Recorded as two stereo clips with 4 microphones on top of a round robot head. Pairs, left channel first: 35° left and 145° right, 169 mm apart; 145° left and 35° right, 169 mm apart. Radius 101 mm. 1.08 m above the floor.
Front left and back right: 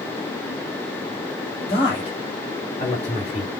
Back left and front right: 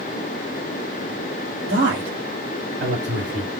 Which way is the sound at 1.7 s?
25° right.